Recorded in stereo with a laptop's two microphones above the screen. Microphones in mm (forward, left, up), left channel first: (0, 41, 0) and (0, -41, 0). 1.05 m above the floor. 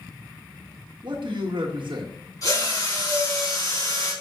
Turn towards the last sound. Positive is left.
turn(degrees=45)  # may be behind; listen again after turning